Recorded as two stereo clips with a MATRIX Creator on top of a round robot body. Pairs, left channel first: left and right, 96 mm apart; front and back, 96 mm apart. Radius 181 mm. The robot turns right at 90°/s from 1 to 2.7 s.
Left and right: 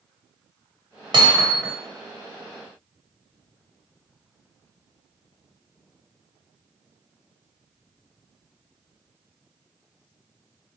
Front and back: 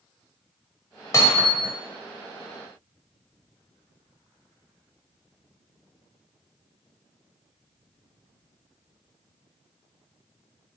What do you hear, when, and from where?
1.1 s hammering: 55° right, 1.4 m; by 1.7 s straight ahead, 1.4 m